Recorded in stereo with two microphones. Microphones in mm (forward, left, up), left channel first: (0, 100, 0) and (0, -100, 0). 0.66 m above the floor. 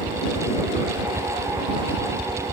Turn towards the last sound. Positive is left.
turn(degrees=-25)  # may be behind; listen again after turning